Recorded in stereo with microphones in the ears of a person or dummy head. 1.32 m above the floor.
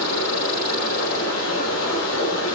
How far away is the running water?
About 3.5 m.